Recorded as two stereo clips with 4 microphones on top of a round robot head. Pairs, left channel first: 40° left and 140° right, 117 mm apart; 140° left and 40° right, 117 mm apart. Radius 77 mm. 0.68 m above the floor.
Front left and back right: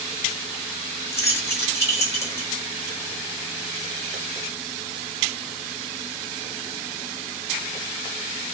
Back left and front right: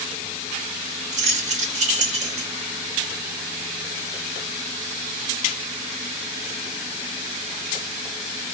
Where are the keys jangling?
25° right, 1.6 m.